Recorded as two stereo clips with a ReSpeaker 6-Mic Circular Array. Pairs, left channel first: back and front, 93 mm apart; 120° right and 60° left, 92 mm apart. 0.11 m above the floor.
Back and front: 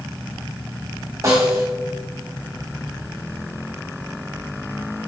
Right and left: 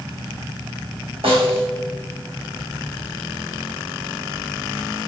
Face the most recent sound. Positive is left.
turn(degrees=55)